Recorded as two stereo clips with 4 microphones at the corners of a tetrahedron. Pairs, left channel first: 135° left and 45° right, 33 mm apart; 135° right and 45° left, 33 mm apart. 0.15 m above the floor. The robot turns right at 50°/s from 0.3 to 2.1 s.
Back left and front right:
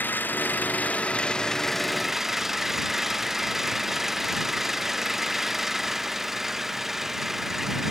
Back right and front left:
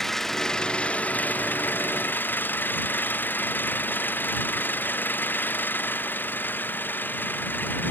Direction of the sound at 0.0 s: 145° left.